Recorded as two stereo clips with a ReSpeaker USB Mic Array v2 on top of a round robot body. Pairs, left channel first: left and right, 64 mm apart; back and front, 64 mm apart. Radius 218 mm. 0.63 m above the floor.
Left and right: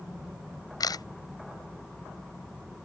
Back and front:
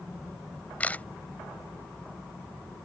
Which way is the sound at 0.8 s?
110° left.